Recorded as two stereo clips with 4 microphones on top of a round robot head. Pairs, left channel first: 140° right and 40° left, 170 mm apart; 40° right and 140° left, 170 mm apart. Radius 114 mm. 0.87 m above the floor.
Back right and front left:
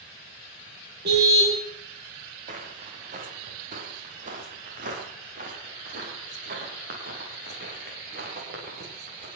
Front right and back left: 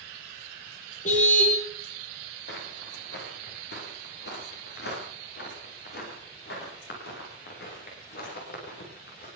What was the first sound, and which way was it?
A car horn, 10° left.